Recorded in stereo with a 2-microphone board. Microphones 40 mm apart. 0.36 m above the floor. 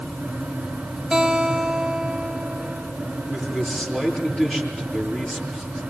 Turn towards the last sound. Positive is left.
turn(degrees=25)  # may be behind; listen again after turning